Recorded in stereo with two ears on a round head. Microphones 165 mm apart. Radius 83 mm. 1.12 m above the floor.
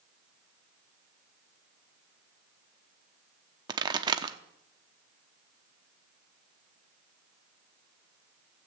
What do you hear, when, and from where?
3.7 s a pop: 25° right (ahead or behind), 0.8 m